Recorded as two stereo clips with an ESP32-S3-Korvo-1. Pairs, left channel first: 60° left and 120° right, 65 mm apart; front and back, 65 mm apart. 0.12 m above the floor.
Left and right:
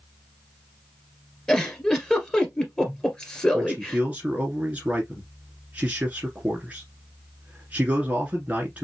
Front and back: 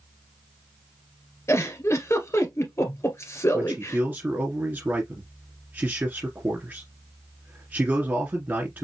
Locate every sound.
1.5 s a giggle: 15° right, 1.9 m
3.5 s a man speaking: 165° right, 1.7 m